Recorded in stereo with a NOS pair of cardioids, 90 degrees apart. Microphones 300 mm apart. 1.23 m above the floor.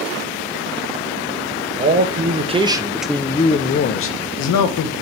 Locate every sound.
1.8 s a man speaking: 35° right, 1.3 m; by 4.9 s 80° left, 1.1 m